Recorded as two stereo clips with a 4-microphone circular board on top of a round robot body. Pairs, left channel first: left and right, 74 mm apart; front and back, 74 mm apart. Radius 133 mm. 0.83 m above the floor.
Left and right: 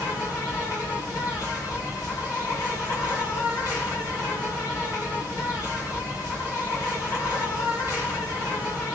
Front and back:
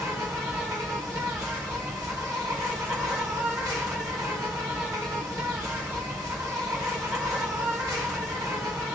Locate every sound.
0.0 s an insect: 130° left, 1.4 m